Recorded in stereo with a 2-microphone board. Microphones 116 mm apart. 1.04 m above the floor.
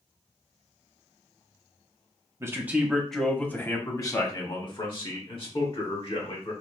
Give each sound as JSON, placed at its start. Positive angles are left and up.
{"t": 2.4, "sound": "a man speaking", "side_deg": -25, "distance_m": 0.8}